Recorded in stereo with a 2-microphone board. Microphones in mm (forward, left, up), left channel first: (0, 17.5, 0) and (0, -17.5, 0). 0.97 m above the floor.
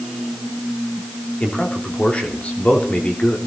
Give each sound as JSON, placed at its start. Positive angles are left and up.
{"t": 1.4, "sound": "a man speaking", "side_deg": 45, "distance_m": 3.0}